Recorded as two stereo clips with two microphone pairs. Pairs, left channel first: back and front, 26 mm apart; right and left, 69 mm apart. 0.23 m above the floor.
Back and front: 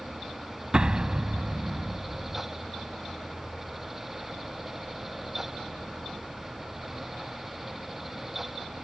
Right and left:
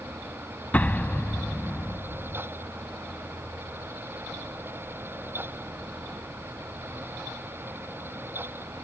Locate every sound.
0.7 s an explosion: 30° right